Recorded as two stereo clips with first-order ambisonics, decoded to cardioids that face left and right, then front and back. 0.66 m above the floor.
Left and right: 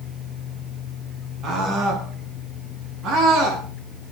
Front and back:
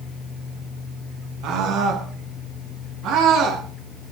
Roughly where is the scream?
Behind right.